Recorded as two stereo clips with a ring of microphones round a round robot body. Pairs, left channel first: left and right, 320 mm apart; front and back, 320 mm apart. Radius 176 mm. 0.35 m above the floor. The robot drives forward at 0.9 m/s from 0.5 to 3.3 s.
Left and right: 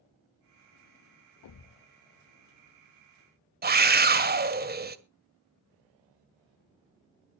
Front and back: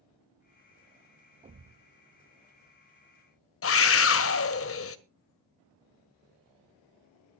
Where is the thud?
110° left, 0.5 m; by 1.8 s 140° left, 0.7 m.